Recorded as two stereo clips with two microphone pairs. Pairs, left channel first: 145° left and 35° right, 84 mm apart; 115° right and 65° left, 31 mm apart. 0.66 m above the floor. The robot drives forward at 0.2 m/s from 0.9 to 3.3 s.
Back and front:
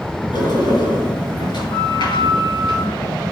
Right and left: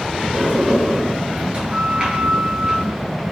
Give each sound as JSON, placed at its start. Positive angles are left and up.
{"t": 0.3, "sound": "a sliding door", "azimuth_deg": 125, "distance_m": 3.0}